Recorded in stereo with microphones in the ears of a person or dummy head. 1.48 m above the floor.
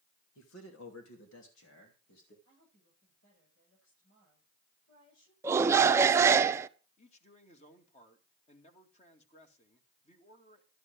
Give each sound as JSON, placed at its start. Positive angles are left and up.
{"t": 0.3, "sound": "a man speaking", "side_deg": 85, "distance_m": 2.5}
{"t": 2.5, "sound": "a woman speaking", "side_deg": 85, "distance_m": 8.5}
{"t": 5.4, "sound": "a shout", "side_deg": -15, "distance_m": 0.7}
{"t": 7.0, "sound": "a man speaking", "side_deg": 40, "distance_m": 2.5}